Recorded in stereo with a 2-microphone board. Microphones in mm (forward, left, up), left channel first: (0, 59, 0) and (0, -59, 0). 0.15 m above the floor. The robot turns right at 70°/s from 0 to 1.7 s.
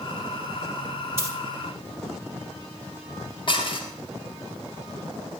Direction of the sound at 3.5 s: 45° left (ahead or behind).